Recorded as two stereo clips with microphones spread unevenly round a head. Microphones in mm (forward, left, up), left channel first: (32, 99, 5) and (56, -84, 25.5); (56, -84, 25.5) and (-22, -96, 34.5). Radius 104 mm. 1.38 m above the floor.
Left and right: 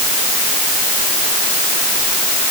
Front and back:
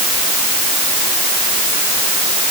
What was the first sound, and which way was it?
Only background noise.